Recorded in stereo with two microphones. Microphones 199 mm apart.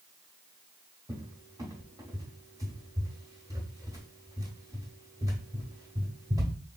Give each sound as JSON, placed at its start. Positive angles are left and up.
{"t": 1.1, "sound": "a cupboard door", "side_deg": -15, "distance_m": 1.0}